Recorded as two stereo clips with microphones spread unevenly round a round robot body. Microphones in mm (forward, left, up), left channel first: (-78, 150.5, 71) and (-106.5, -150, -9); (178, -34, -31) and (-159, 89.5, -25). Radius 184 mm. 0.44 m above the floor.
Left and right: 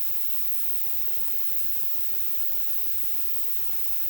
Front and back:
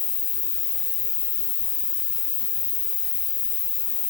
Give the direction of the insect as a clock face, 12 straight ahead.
3 o'clock.